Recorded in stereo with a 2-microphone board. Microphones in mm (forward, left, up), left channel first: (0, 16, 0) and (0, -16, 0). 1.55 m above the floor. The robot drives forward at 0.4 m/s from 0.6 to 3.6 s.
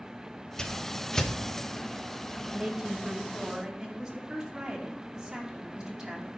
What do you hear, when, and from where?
0.6 s a whoosh: 25° left (ahead or behind), 0.8 m; by 1.3 s 20° left (ahead or behind), 0.9 m
2.5 s a woman speaking: 15° right (ahead or behind), 2 m; by 6.3 s 10° right (ahead or behind), 2.5 m